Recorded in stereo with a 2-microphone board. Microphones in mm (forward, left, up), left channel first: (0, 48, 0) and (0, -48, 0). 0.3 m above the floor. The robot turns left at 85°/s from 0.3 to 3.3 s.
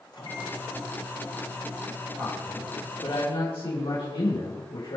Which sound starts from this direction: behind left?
A microwave, at 0.1 s.